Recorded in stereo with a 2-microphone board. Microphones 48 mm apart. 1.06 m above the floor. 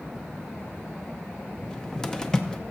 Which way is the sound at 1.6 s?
15° left (ahead or behind).